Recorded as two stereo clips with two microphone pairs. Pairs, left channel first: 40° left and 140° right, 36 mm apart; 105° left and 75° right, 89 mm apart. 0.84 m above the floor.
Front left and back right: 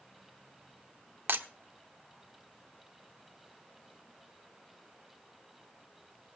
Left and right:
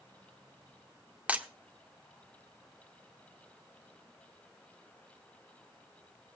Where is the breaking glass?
145° right, 1.1 m.